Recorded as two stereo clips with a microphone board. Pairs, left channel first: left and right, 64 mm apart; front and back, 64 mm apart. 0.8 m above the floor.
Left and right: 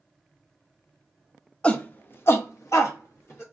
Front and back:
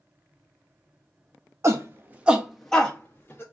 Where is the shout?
160° left, 0.9 m; by 3.4 s 55° left, 1.2 m.